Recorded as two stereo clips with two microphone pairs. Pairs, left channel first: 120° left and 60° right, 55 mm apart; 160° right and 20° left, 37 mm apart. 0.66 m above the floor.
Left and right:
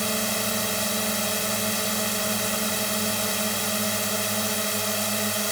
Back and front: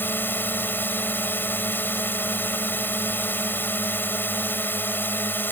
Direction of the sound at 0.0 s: 150° right.